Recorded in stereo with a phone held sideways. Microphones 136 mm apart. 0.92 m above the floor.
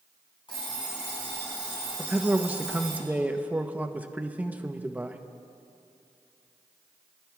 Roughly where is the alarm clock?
Left.